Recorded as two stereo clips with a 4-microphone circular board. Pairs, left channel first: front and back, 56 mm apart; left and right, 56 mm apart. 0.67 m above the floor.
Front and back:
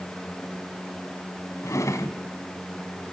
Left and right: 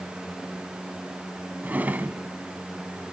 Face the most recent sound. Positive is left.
turn(degrees=-30)